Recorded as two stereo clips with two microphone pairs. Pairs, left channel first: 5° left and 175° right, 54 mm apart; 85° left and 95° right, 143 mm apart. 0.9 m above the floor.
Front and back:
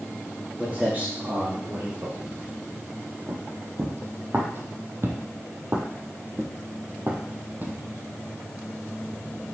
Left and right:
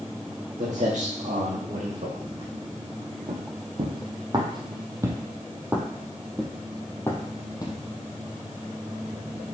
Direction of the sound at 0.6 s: 120° right.